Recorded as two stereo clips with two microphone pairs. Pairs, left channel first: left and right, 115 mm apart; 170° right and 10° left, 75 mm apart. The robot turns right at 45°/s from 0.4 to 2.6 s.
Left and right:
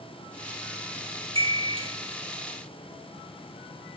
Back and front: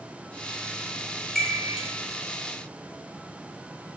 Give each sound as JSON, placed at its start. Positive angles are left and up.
{"t": 1.4, "sound": "a chime", "azimuth_deg": -90, "distance_m": 1.0}